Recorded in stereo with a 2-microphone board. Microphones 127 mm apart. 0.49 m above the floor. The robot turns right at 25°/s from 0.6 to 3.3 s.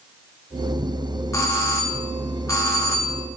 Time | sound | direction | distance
1.3 | a doorbell | 25° left (ahead or behind) | 1.1 m